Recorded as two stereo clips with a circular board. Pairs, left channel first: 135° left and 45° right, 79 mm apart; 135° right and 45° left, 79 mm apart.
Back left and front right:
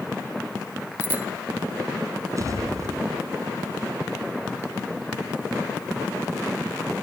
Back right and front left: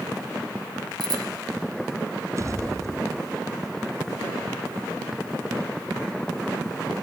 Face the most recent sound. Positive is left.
turn(degrees=0)